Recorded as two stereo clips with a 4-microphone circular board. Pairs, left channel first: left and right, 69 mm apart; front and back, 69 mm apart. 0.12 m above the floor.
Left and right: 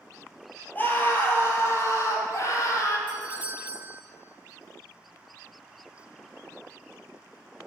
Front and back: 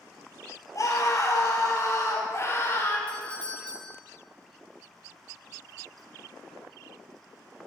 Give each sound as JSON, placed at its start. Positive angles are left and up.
{"t": 0.8, "sound": "a scream", "azimuth_deg": 30, "distance_m": 2.5}
{"t": 3.1, "sound": "a doorbell", "azimuth_deg": -55, "distance_m": 1.7}